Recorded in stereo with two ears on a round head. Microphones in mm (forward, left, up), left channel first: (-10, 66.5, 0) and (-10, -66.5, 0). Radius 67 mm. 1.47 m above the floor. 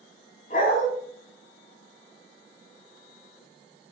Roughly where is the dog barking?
Left.